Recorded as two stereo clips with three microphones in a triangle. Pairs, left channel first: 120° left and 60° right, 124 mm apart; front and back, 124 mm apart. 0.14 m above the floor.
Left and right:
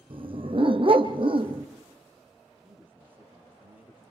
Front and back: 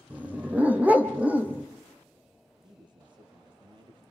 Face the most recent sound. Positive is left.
turn(degrees=-135)